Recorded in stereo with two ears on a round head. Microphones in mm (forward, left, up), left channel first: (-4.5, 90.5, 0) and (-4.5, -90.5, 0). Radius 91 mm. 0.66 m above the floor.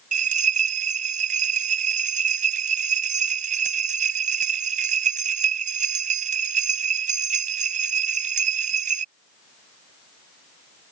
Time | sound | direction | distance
0.1 | a bell | 40° right (ahead or behind) | ?